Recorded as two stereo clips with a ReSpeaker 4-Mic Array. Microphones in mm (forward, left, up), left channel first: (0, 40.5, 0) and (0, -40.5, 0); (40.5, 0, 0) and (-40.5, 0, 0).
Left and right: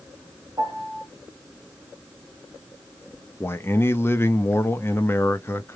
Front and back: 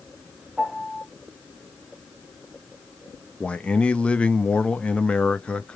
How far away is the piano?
About 1.0 m.